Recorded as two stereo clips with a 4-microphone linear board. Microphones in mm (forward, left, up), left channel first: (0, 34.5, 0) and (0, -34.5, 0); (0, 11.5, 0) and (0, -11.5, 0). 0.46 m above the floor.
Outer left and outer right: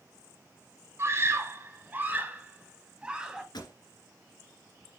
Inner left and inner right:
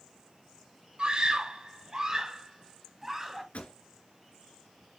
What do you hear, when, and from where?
1.0 s a scream: 40° right (ahead or behind), 3 m; by 3.4 s 10° right (ahead or behind), 2.5 m
3.5 s a pop: 80° left, 3 m